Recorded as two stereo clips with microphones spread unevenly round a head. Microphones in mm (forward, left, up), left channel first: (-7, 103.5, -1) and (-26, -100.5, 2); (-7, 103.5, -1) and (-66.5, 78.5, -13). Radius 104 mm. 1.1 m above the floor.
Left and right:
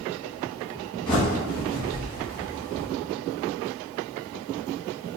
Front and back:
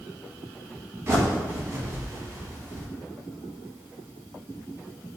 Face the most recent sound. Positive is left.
turn(degrees=150)